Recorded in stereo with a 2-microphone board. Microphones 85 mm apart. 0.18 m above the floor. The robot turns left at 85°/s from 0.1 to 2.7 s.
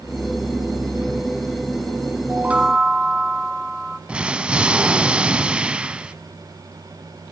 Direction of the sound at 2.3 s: 135° right.